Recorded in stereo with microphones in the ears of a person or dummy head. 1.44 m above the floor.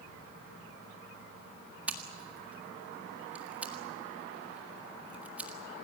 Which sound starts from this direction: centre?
Scissors, at 1.9 s.